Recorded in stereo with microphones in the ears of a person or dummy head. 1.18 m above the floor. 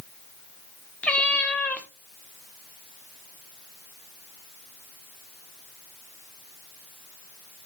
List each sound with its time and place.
1.0 s a cat meowing: 10° left (ahead or behind), 0.7 m